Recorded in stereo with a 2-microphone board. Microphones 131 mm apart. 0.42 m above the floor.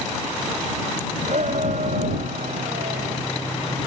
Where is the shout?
65° right (ahead or behind); by 3.2 s 70° right (ahead or behind).